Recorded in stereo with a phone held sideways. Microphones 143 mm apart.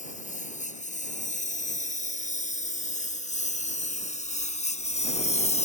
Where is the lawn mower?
60° left (ahead or behind); by 5.7 s 50° left (ahead or behind).